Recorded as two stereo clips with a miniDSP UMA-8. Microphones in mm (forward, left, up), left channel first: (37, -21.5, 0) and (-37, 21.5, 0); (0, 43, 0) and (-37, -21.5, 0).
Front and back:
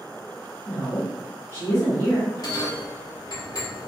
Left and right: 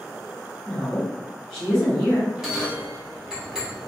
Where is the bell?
40° right, 0.9 m.